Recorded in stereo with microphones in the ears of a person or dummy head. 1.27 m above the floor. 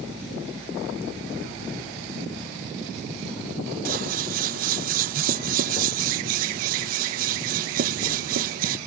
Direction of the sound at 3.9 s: 50° right (ahead or behind).